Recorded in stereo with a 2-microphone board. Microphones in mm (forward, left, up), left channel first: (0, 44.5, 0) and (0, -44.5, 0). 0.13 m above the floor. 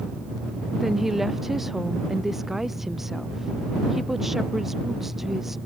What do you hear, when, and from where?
0.8 s a woman speaking: 5° right (ahead or behind)